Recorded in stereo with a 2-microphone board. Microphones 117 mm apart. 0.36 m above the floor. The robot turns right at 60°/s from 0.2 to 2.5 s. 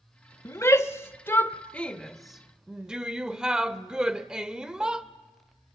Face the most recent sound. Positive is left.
turn(degrees=-5)  # may be behind; listen again after turning